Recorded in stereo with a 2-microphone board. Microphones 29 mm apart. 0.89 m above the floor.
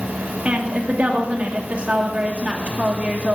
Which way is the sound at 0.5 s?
40° right (ahead or behind).